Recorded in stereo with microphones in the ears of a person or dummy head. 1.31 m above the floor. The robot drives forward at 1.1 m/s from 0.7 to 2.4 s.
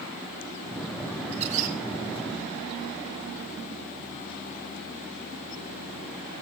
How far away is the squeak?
About 1.4 m.